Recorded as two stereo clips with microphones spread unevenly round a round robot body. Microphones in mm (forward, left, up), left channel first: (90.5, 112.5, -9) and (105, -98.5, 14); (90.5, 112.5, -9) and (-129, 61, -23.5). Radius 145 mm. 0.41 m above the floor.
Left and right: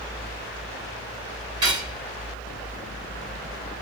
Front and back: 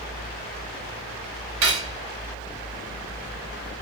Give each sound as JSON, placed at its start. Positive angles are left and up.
{"t": 1.6, "sound": "cutlery clinking", "azimuth_deg": -165, "distance_m": 1.5}